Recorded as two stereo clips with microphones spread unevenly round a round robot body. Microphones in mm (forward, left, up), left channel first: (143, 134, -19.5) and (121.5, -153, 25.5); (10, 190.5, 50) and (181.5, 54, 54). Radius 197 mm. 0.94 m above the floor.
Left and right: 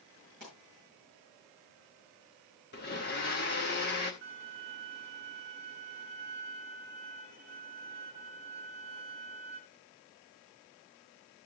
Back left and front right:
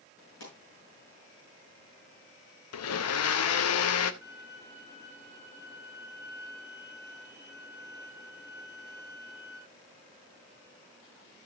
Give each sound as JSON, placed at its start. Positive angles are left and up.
{"t": 0.4, "sound": "a pop", "azimuth_deg": 155, "distance_m": 7.0}
{"t": 2.7, "sound": "a blender", "azimuth_deg": 150, "distance_m": 0.6}
{"t": 4.2, "sound": "a violin", "azimuth_deg": -150, "distance_m": 3.5}